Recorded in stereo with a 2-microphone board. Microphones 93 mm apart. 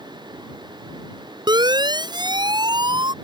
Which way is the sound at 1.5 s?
50° right (ahead or behind).